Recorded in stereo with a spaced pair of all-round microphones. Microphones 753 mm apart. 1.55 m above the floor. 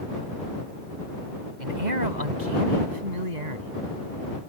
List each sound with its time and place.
1.6 s a man speaking: 70° right (ahead or behind); by 3.7 s 60° right (ahead or behind)